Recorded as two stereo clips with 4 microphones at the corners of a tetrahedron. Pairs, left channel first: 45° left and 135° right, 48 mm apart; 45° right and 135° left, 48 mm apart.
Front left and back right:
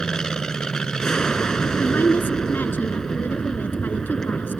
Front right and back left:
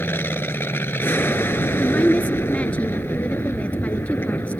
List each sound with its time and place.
0.0 s an aircraft: 30° right
1.8 s a woman speaking: 5° left